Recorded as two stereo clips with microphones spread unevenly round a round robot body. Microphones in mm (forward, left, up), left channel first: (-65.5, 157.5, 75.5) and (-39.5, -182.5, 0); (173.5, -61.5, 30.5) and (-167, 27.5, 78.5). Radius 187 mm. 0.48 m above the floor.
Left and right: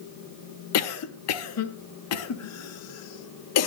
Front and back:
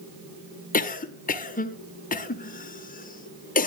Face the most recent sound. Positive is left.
turn(degrees=45)